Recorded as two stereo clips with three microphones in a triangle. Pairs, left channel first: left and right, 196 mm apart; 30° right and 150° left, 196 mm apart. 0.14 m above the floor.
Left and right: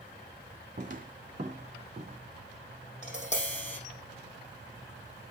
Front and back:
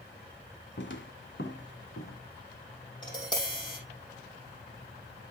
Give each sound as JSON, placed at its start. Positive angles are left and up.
{"t": 0.8, "sound": "footsteps", "azimuth_deg": -45, "distance_m": 1.6}
{"t": 3.0, "sound": "tapping", "azimuth_deg": 35, "distance_m": 5.0}